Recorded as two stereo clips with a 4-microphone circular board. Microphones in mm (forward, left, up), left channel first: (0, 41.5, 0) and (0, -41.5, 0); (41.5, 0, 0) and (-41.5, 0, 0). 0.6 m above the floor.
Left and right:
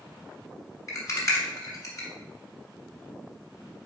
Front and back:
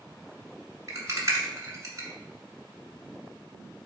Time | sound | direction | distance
0.9 | a rattle | 130° left | 1.1 m